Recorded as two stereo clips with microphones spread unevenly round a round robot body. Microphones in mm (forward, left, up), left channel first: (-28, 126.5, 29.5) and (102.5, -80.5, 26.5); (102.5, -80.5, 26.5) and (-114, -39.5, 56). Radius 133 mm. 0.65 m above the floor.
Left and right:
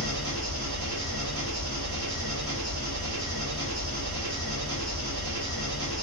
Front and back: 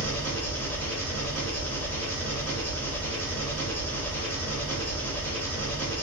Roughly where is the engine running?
Right.